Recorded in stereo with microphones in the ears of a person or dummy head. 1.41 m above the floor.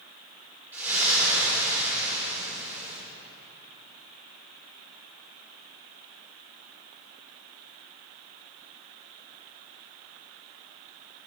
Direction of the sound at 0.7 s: 10° right (ahead or behind).